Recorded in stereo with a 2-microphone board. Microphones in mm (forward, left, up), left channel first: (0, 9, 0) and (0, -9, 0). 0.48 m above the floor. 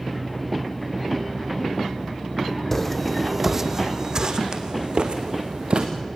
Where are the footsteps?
10° left (ahead or behind), 1.5 m; by 5.9 s 75° right (ahead or behind), 3 m.